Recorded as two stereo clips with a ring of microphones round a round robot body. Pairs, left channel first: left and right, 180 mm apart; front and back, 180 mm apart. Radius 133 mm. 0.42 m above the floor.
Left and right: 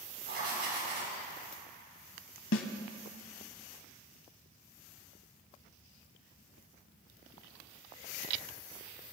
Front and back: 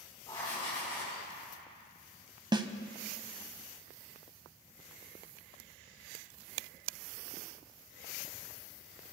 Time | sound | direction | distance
0.3 | writing | 70° right | 4 m
2.5 | a snare drum | 110° left | 0.7 m